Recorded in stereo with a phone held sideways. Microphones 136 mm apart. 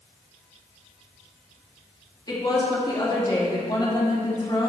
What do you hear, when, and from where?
2.3 s a woman speaking: 30° left (ahead or behind), 2.5 m